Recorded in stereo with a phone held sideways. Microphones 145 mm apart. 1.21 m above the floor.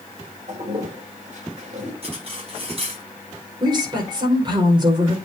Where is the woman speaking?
30° right (ahead or behind), 5 m.